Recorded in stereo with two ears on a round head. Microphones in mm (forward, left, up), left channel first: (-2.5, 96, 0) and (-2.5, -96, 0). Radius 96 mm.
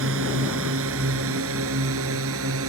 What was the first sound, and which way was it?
A drone, 65° right (ahead or behind).